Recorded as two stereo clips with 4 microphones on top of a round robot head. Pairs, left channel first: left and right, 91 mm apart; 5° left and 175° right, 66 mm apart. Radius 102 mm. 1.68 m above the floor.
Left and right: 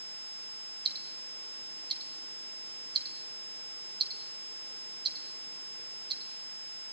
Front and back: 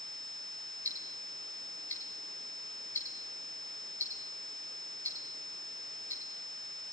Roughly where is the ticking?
Ahead right.